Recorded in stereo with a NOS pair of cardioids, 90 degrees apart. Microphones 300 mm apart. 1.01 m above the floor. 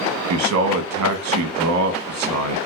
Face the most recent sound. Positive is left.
turn(degrees=-70)